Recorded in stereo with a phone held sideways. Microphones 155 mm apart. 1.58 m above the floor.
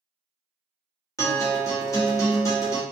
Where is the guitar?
20° left (ahead or behind), 1.0 m.